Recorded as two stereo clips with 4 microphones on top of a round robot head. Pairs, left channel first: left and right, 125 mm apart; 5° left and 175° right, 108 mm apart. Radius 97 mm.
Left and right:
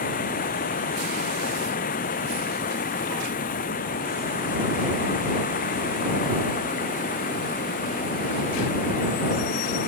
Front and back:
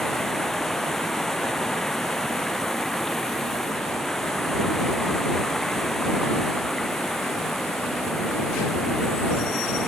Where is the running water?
90° left.